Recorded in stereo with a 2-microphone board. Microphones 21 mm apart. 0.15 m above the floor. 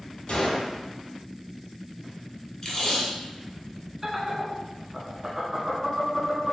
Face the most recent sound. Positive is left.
turn(degrees=-20)  # may be behind; listen again after turning